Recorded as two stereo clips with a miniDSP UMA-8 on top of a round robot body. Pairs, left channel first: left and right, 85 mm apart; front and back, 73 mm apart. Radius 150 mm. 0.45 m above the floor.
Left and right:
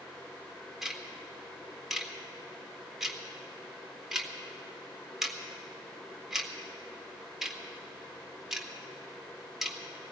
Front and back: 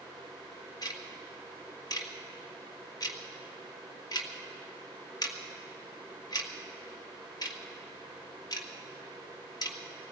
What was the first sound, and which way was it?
Ticking, 5° right.